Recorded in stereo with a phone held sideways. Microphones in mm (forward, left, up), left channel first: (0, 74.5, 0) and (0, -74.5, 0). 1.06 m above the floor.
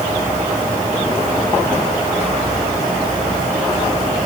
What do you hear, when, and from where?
Only background noise.